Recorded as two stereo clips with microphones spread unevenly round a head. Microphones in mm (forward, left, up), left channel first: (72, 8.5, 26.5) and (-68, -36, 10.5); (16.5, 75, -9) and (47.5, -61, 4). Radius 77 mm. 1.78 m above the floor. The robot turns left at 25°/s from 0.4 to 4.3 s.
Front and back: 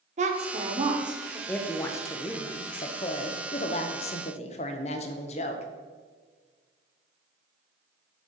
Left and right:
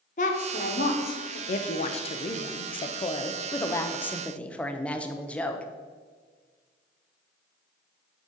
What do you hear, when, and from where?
0.2 s a woman speaking: 150° left, 1.1 m; by 1.4 s 125° left, 1.1 m
1.5 s a woman speaking: 90° left, 0.7 m; by 5.7 s 20° left, 0.7 m